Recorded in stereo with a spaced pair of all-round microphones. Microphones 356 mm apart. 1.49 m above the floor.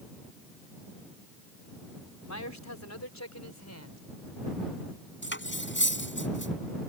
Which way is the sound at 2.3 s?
50° left (ahead or behind).